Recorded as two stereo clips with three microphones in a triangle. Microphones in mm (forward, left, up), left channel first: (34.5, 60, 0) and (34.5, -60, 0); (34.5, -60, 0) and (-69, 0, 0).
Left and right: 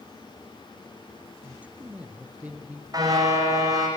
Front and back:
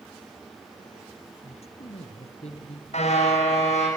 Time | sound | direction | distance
1.4 | a man speaking | 15° right | 4 m
2.9 | a car horn | 35° right | 7.5 m